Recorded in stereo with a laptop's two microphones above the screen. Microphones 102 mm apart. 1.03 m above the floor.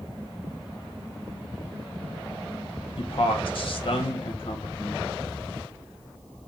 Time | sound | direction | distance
3.0 | a man speaking | 55° left (ahead or behind) | 0.6 m